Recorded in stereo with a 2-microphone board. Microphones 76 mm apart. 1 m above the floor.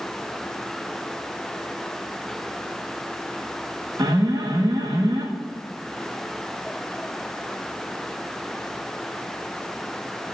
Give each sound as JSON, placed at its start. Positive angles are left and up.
{"t": 4.0, "sound": "an alarm", "side_deg": -60, "distance_m": 1.5}